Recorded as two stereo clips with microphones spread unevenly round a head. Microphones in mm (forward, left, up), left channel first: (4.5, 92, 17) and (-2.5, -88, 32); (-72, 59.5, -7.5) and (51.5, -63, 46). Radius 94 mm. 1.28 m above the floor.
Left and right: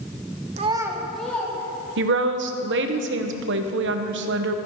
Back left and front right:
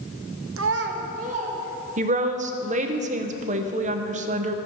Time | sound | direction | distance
0.6 | a child speaking | 40° right | 0.7 m
2.0 | a woman speaking | 100° right | 0.8 m